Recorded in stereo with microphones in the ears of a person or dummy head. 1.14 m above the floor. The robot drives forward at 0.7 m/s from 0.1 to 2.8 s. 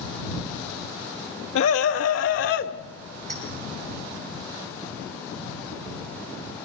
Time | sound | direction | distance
1.6 | a scream | 75° left (ahead or behind) | 1.5 m
3.3 | a clink | 35° right (ahead or behind) | 8 m